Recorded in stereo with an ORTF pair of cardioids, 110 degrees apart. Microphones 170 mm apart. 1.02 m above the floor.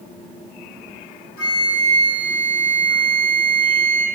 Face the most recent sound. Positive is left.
turn(degrees=60)